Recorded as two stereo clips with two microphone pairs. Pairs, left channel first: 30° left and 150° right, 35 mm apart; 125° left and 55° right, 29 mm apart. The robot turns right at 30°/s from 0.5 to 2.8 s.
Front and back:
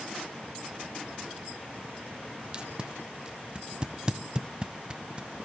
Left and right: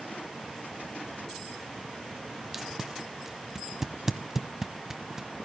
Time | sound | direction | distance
2.5 | tape being pulled | 115° right | 0.9 m